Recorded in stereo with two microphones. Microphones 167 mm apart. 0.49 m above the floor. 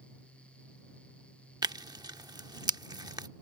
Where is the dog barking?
I don't hear a dog barking.